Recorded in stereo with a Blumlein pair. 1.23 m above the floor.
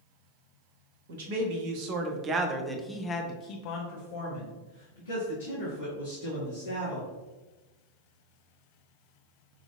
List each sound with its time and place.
1.1 s a man speaking: 55° right, 1.3 m; by 7.1 s 80° left, 3 m